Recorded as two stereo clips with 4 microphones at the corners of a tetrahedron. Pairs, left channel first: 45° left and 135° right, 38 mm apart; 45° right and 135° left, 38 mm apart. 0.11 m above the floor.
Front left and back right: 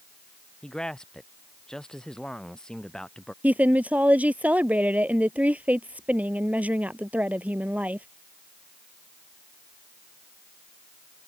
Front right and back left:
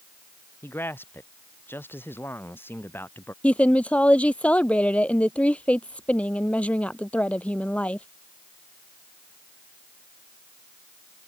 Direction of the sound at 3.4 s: 95° right.